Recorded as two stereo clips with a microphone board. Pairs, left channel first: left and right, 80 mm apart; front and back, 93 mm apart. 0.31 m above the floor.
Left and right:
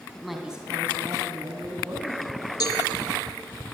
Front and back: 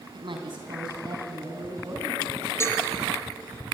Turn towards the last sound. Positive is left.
turn(degrees=60)